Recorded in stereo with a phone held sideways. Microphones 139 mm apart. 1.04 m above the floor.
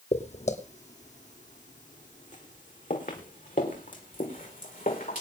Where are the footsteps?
50° left (ahead or behind), 1.9 m; by 5.2 s 75° left (ahead or behind), 5 m.